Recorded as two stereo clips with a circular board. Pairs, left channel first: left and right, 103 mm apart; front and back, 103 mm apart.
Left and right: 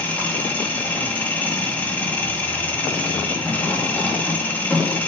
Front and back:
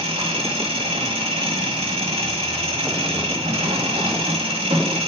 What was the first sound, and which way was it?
An engine running, 165° left.